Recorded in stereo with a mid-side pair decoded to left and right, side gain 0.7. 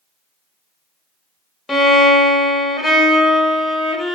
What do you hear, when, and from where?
1.7 s a violin: 10° left, 0.6 m